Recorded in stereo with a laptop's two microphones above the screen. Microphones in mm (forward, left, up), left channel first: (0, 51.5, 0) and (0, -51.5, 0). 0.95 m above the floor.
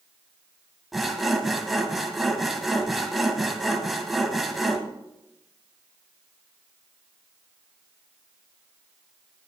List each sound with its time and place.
0.9 s sawing: centre (ahead or behind), 1.6 m